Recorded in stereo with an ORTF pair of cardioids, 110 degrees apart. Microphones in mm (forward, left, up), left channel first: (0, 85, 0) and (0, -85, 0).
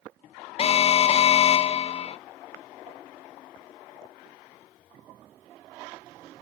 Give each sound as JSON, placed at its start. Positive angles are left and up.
{"t": 0.6, "sound": "an alarm", "azimuth_deg": 35, "distance_m": 0.7}